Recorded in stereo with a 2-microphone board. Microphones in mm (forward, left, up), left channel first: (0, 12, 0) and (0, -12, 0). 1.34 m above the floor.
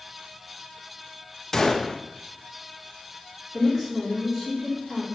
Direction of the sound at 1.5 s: 20° left (ahead or behind).